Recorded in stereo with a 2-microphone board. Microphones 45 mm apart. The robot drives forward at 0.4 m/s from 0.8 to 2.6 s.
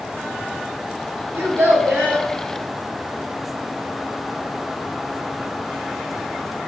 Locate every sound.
1.3 s a child speaking: 70° right (ahead or behind), 0.8 m; by 2.3 s 50° right (ahead or behind), 1.0 m